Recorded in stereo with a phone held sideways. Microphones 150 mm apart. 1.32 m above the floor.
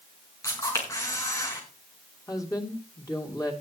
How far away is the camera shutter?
About 5 m.